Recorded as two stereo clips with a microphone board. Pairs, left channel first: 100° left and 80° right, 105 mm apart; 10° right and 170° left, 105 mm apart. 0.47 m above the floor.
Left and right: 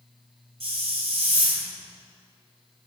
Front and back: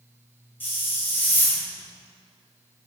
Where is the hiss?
85° right, 1.7 m.